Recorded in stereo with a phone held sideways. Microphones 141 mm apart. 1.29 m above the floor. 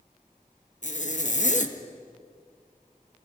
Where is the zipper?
55° left (ahead or behind), 1.7 m.